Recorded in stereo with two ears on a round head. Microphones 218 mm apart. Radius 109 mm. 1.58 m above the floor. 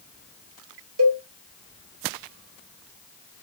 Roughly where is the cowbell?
Right.